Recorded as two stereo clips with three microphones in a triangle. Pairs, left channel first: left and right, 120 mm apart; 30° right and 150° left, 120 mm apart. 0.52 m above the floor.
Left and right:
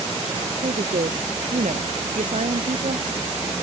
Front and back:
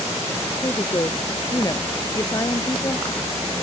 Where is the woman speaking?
90° right.